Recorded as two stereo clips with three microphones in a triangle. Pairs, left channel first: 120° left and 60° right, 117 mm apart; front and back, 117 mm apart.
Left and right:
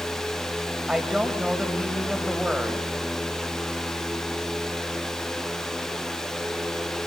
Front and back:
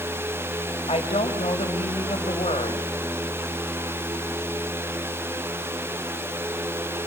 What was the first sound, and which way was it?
A woman speaking, 25° left.